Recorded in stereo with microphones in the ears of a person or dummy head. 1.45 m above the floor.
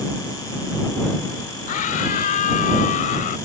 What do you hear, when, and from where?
1.7 s a scream: 45° left (ahead or behind)